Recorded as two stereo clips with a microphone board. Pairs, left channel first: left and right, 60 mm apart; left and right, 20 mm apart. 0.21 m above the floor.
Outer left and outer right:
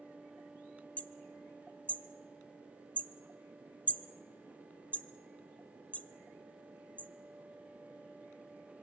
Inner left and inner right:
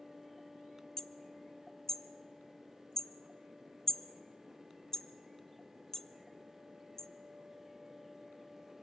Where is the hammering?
25° left (ahead or behind), 0.8 m.